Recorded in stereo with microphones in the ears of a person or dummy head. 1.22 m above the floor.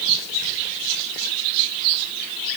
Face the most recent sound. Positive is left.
No sound to turn to.